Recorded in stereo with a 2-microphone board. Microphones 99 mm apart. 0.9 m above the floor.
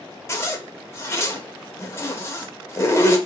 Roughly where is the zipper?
Left.